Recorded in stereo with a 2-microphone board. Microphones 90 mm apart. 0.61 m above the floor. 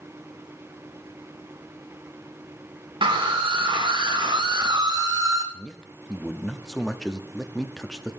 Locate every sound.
3.0 s a scream: 65° right (ahead or behind), 1.5 m; by 5.4 s 40° right (ahead or behind), 1.4 m
5.5 s a man speaking: 5° left (ahead or behind), 0.6 m